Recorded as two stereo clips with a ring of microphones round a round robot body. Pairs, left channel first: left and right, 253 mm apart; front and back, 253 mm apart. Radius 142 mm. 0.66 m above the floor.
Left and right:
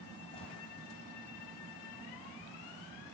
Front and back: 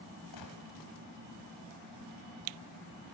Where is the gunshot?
20° left, 1.6 m.